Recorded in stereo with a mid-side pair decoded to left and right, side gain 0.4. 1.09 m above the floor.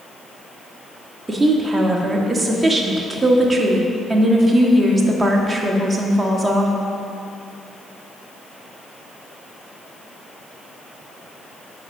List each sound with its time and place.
1.3 s a woman speaking: 20° right, 2.0 m